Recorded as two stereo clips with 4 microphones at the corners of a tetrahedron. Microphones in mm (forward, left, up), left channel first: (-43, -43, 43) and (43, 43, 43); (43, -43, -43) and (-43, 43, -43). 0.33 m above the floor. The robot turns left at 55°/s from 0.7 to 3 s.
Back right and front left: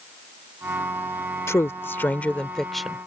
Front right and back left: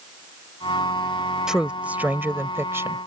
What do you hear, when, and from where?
1.5 s a woman speaking: 150° right; by 3.0 s 125° left